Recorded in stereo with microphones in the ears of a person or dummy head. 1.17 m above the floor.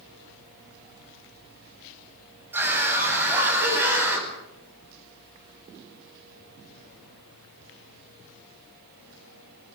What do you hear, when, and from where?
2.5 s a scream: 15° right (ahead or behind), 9 m; by 4.3 s 10° right (ahead or behind), 10.5 m